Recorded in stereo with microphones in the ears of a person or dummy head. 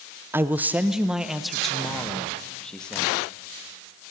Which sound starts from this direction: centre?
A man speaking, at 0.3 s.